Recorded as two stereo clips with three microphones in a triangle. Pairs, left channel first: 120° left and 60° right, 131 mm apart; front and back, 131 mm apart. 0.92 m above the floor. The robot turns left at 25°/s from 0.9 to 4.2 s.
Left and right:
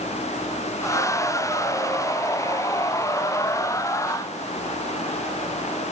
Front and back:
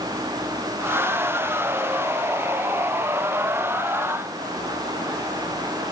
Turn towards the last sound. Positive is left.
No sound to turn to.